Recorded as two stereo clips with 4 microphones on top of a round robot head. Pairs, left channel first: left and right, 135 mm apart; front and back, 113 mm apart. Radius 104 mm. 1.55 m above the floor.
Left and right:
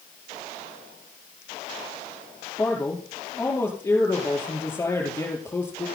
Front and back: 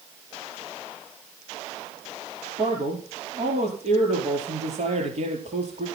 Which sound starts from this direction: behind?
A man speaking, at 2.6 s.